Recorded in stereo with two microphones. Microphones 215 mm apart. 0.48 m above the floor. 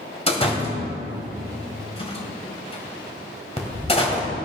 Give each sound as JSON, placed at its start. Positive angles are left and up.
{"t": 0.3, "sound": "a door slam", "side_deg": 25, "distance_m": 1.7}